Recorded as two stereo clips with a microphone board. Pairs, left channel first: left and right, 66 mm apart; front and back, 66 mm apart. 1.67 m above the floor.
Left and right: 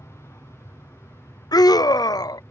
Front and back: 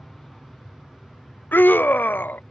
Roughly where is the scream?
Ahead left.